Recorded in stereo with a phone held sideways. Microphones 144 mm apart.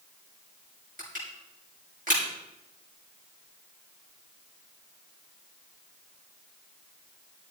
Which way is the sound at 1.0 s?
70° right (ahead or behind).